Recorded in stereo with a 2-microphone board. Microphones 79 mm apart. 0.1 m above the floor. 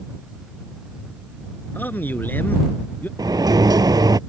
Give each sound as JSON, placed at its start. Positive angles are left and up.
{"t": 1.8, "sound": "a man speaking", "side_deg": 25}
{"t": 3.2, "sound": "a sliding door", "side_deg": -60}